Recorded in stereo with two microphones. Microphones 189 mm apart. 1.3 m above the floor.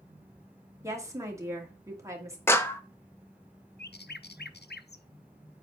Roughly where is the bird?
Left.